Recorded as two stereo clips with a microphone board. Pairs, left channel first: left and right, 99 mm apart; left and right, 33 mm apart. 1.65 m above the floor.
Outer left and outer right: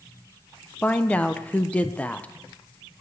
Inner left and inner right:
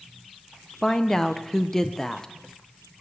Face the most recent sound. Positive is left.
turn(degrees=15)  # may be behind; listen again after turning